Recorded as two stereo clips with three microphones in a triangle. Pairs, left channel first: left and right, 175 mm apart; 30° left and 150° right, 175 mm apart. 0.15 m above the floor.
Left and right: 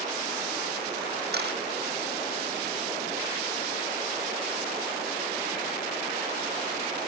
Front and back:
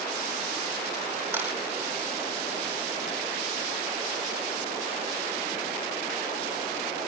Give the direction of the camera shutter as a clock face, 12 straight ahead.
2 o'clock.